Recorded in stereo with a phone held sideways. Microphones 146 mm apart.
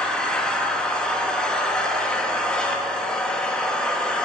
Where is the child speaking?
I don't hear a child speaking.